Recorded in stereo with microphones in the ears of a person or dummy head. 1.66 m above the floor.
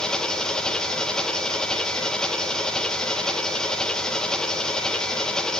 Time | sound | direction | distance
0.0 | an engine running | 5° left (ahead or behind) | 1.0 m